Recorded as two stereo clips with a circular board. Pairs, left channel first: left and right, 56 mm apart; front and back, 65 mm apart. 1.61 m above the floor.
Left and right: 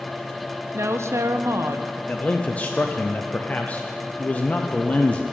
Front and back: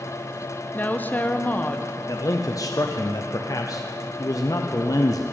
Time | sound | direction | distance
0.7 | a woman speaking | 60° right | 0.8 m
2.1 | a man speaking | 25° left | 0.6 m